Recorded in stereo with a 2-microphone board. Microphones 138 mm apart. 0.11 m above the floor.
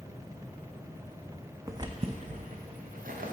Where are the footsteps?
20° right (ahead or behind), 0.5 m; by 3.3 s 90° right, 1.1 m.